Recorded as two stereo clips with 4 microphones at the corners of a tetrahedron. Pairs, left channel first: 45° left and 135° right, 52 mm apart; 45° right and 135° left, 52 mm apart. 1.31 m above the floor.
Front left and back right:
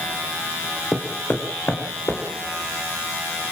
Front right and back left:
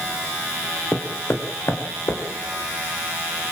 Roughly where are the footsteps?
Ahead.